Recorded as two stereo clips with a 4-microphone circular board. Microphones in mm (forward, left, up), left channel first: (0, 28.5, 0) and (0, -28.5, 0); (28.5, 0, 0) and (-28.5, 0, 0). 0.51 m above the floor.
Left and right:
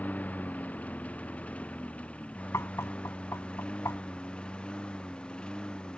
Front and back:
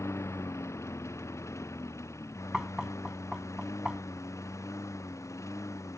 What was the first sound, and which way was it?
A lawn mower, 30° left.